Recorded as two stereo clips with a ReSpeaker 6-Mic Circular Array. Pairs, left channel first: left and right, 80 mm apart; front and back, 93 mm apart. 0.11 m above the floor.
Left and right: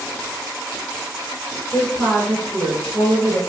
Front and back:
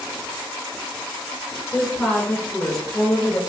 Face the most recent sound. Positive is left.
turn(degrees=-50)